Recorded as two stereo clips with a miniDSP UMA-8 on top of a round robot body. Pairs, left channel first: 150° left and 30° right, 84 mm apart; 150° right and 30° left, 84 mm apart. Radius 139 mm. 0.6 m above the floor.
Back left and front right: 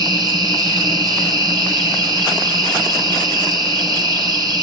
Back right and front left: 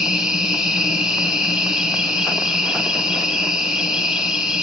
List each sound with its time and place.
0.0 s an insect: 50° right, 3 m